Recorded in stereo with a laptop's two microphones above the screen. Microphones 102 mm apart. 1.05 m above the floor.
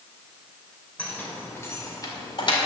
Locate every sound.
1.0 s keys jangling: 15° left (ahead or behind), 2.5 m; by 2.5 s 55° left (ahead or behind), 2 m